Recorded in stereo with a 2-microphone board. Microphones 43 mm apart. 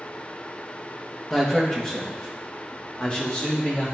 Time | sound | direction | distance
1.3 | a man speaking | 20° left (ahead or behind) | 1.2 m